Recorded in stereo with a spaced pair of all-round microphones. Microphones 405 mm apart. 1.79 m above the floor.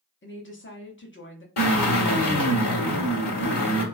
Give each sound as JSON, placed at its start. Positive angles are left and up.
{"t": 0.2, "sound": "a woman speaking", "side_deg": 30, "distance_m": 0.6}
{"t": 1.6, "sound": "a drill", "side_deg": 75, "distance_m": 1.3}